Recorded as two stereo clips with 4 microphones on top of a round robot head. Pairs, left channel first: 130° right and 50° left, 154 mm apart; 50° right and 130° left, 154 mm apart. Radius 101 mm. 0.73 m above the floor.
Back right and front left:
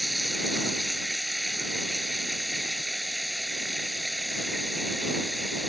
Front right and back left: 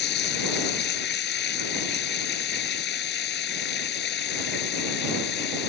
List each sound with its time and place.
0.0 s running water: 40° right